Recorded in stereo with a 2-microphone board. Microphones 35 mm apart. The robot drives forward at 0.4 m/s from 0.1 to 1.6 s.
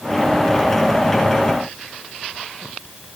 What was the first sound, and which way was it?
Only background noise.